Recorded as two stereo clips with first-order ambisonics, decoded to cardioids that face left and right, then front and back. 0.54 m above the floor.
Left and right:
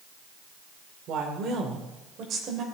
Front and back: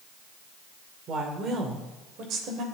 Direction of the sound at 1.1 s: 130° right.